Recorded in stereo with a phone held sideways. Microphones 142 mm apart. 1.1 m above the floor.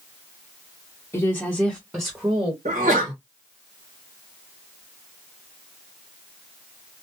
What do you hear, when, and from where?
1.1 s a woman speaking: 15° left (ahead or behind), 0.8 m; by 2.5 s 25° right (ahead or behind), 1.2 m
2.6 s a sneeze: 65° right (ahead or behind), 1.4 m